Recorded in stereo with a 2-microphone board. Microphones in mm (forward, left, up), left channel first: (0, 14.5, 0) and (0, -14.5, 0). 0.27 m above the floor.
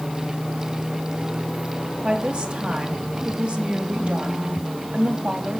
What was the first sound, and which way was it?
A woman speaking, 45° right (ahead or behind).